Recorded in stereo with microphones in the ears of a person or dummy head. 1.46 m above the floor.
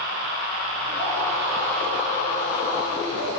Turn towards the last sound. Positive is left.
turn(degrees=35)  # may be behind; listen again after turning